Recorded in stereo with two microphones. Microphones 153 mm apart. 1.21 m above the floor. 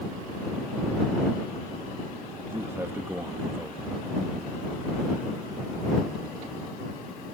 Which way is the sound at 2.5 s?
15° right (ahead or behind).